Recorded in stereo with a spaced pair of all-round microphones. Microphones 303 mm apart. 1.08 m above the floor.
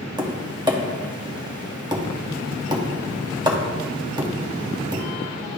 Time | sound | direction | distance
0.2 | tapping | 15° right (ahead or behind) | 0.8 m